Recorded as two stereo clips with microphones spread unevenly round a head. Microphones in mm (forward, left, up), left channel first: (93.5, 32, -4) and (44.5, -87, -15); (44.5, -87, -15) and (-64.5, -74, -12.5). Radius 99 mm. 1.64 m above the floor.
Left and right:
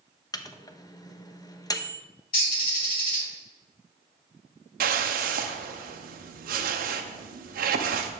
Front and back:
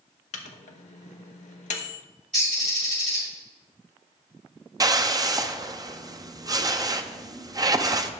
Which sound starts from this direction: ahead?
A microwave, at 0.3 s.